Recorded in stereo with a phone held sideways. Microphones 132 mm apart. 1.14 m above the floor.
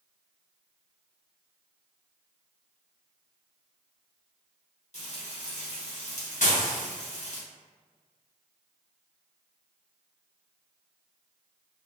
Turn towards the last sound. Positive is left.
turn(degrees=75)  # may be behind; listen again after turning